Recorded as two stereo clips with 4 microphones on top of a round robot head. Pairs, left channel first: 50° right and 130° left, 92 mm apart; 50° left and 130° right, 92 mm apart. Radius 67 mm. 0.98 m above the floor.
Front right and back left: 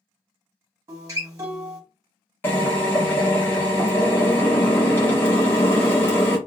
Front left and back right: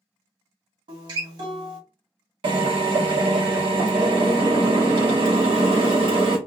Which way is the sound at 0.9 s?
170° right.